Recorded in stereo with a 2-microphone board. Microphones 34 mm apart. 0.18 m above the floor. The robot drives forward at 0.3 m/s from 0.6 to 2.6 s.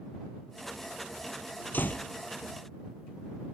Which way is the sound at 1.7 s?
60° left (ahead or behind).